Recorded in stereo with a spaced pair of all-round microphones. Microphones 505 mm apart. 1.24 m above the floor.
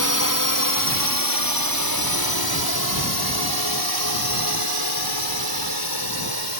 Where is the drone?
35° left (ahead or behind); by 6.6 s 50° left (ahead or behind).